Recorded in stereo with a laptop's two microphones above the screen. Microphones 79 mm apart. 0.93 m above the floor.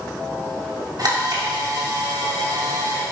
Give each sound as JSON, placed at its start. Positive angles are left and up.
{"t": 1.0, "sound": "a camera shutter", "side_deg": -55, "distance_m": 6.0}